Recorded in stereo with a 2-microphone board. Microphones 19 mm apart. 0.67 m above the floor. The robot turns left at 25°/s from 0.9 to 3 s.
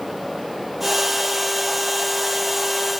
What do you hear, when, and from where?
Only background noise.